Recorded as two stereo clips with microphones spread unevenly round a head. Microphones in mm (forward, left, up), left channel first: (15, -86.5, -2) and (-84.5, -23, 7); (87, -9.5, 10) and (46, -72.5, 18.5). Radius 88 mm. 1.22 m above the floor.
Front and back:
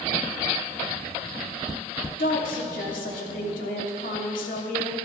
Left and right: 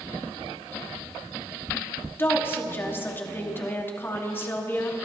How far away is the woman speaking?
About 2.5 m.